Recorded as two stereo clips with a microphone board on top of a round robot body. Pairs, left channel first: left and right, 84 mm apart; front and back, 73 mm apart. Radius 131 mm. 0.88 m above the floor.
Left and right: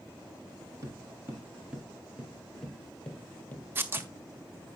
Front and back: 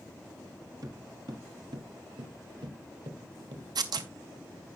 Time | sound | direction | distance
0.8 | footsteps | 145° right | 1.6 m
3.8 | tearing paper | 155° right | 0.9 m